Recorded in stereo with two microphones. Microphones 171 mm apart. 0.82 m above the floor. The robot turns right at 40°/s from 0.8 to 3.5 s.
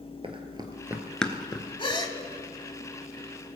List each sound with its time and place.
0.2 s running footsteps: 35° right (ahead or behind), 1.2 m; by 1.7 s 25° left (ahead or behind), 0.8 m
1.8 s a gasp: 30° left (ahead or behind), 0.8 m; by 2.2 s 20° left (ahead or behind), 0.8 m